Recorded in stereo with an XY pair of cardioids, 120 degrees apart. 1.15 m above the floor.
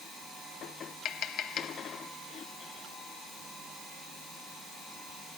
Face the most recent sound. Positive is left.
turn(degrees=65)